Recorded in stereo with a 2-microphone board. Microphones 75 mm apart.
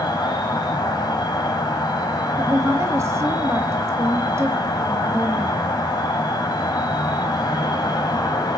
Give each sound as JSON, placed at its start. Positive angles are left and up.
{"t": 0.0, "sound": "an insect", "side_deg": 65, "distance_m": 3.5}
{"t": 2.4, "sound": "a woman speaking", "side_deg": -35, "distance_m": 1.7}